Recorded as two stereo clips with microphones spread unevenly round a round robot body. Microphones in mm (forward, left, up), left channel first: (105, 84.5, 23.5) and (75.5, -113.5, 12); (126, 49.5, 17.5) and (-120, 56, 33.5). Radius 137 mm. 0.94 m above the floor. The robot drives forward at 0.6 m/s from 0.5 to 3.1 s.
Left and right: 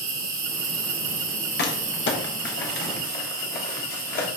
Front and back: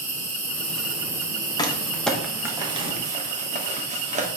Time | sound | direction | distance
0.0 | an insect | 85° right | 1.6 m
1.6 | crumpling | 65° left | 1.2 m